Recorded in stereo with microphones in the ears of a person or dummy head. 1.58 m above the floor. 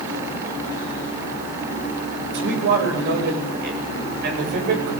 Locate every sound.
2.3 s a man speaking: 65° right (ahead or behind), 9 m; by 4.9 s 55° right (ahead or behind), 8 m